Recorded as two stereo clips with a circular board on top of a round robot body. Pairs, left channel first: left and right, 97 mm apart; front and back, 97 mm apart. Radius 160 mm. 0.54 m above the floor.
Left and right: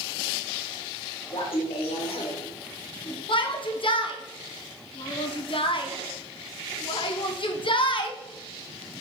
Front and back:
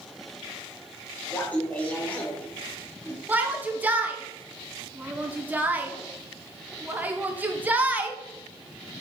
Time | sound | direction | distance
1.3 | laughter | 75° left | 2.5 m
3.3 | a shout | 110° left | 1.6 m